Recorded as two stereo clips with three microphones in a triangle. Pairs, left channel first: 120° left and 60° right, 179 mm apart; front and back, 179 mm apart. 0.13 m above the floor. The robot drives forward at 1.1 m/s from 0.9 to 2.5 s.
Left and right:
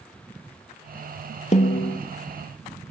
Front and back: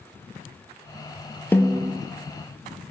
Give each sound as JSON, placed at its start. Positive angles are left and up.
{"t": 1.5, "sound": "a snare drum", "azimuth_deg": 75, "distance_m": 0.9}